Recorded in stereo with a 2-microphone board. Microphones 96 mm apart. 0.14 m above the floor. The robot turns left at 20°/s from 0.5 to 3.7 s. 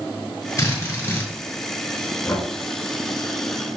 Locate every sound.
0.6 s a drill: 35° left (ahead or behind), 2 m; by 1.3 s 25° left (ahead or behind), 2 m
2.3 s knocking: 30° left (ahead or behind), 1.0 m